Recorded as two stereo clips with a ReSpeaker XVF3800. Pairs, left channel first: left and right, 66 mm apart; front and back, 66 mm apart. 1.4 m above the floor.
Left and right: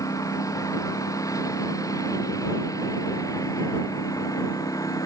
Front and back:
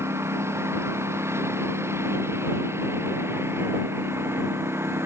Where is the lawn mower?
130° left; by 5.1 s 125° left.